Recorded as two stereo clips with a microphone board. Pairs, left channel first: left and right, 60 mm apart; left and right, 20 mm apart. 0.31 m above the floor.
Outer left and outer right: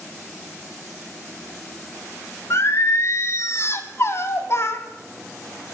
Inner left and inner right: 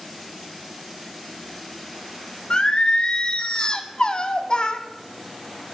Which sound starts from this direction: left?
Singing, at 2.5 s.